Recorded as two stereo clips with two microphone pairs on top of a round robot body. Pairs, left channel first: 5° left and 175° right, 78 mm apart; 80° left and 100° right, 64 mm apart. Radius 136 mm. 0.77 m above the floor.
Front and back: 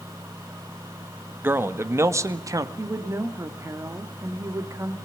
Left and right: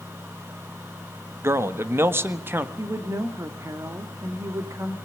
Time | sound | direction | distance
1.4 | a man speaking | 120° right | 1.8 m
2.8 | a woman speaking | 130° right | 2.5 m